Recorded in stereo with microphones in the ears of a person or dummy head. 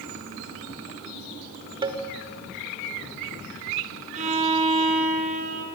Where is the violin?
40° right (ahead or behind), 4 m.